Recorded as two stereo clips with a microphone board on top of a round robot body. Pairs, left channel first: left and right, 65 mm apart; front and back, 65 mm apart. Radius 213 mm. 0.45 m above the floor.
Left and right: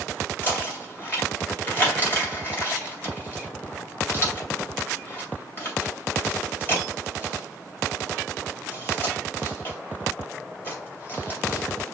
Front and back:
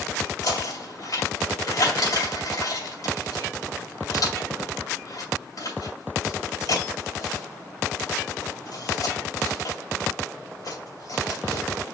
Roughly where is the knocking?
Ahead left.